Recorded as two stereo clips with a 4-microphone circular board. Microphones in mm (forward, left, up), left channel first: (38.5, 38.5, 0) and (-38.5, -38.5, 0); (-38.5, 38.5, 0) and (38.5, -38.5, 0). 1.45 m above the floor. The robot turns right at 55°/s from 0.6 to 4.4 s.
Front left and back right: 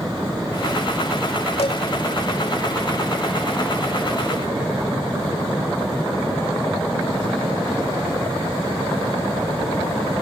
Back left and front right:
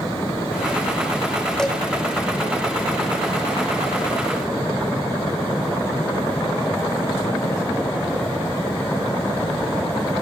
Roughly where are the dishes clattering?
Ahead left.